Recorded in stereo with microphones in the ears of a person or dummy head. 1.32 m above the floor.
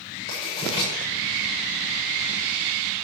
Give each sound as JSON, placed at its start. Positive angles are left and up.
{"t": 0.3, "sound": "writing", "side_deg": 40, "distance_m": 6.0}